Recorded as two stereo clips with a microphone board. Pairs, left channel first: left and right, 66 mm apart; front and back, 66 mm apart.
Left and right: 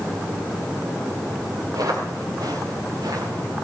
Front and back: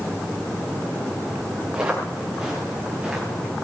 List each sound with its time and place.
1.7 s footsteps: 100° right, 7 m